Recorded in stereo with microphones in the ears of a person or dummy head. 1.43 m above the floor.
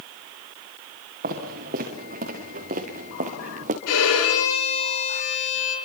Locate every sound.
1.2 s footsteps: 45° right (ahead or behind), 6 m; by 3.8 s 40° right (ahead or behind), 4.5 m
3.9 s a violin: 80° left, 7 m